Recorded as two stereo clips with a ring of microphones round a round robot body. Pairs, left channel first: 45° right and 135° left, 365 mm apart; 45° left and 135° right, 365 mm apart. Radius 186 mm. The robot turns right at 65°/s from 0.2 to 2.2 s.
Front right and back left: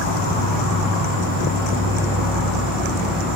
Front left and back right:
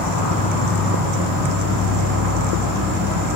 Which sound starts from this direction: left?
An insect, at 0.0 s.